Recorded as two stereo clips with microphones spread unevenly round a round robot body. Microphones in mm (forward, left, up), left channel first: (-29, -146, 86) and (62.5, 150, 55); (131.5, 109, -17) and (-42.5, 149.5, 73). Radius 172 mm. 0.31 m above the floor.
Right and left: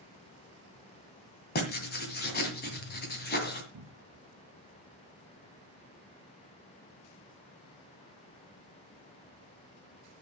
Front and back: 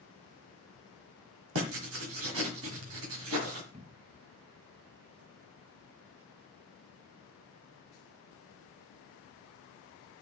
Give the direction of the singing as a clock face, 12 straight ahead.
I don't hear singing.